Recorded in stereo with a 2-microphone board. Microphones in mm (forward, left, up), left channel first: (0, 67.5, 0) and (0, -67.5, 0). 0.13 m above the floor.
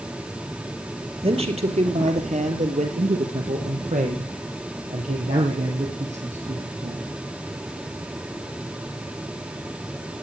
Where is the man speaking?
50° right (ahead or behind), 3 m; by 7.1 s 55° right (ahead or behind), 5 m.